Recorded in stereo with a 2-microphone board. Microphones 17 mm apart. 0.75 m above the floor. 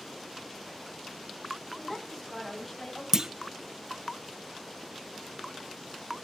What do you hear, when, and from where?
1.8 s a woman speaking: 10° left (ahead or behind), 5.5 m; by 3.0 s 20° left (ahead or behind), 4.5 m
3.1 s a clunk: 35° right (ahead or behind), 0.6 m